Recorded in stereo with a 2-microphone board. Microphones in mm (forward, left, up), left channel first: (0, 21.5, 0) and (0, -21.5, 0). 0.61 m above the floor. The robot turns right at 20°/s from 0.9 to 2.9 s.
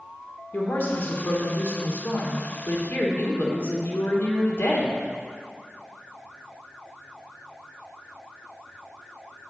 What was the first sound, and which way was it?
A woman speaking, 60° left.